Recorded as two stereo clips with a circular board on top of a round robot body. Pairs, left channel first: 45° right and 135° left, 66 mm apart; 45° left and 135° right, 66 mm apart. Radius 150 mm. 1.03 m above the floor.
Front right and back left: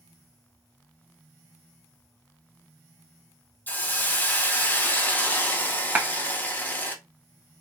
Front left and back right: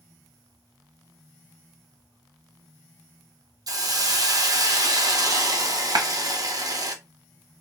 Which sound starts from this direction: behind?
A clap, at 6.0 s.